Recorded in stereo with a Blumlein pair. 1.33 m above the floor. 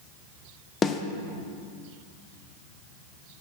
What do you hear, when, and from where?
0.8 s a snare drum: 20° left, 0.5 m